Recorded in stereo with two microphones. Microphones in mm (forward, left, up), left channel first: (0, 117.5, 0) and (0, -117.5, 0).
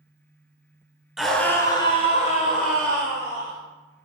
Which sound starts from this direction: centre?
A scream, at 1.2 s.